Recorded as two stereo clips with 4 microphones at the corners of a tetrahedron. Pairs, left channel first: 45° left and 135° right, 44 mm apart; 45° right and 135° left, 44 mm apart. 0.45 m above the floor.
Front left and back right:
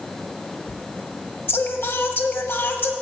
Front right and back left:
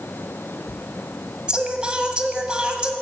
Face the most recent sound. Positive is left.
turn(degrees=70)